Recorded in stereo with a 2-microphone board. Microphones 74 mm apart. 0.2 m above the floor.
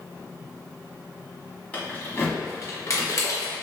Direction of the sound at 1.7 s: 20° left (ahead or behind).